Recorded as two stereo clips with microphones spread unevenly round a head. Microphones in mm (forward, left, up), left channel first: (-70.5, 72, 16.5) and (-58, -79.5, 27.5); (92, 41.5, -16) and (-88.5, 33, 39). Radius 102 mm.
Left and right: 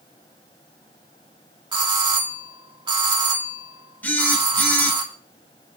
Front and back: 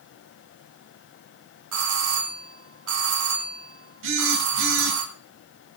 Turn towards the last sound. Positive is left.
turn(degrees=175)